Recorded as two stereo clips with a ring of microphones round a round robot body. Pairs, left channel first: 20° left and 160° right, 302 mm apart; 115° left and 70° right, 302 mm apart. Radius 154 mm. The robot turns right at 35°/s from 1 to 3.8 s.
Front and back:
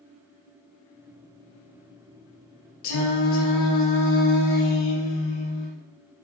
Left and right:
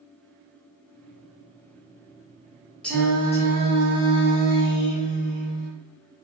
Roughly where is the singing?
Ahead left.